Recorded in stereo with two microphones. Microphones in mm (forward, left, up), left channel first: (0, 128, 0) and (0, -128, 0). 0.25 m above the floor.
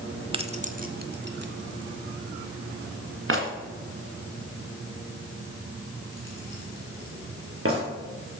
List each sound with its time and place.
0.3 s keys jangling: 20° right (ahead or behind), 0.8 m; by 7.8 s 55° right (ahead or behind), 4 m